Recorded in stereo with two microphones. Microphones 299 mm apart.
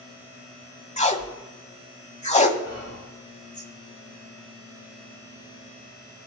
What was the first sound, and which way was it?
Tape being pulled, 25° left (ahead or behind).